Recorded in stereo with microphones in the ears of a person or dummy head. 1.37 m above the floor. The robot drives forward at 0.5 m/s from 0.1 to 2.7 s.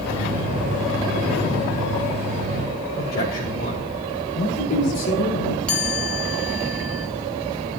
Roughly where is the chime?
Centre.